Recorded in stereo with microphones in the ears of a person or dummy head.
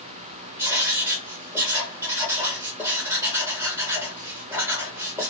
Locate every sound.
0.6 s writing: 15° right (ahead or behind), 1.0 m